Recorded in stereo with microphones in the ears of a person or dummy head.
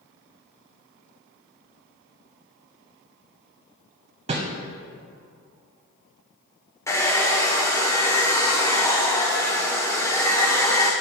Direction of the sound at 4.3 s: 25° right (ahead or behind).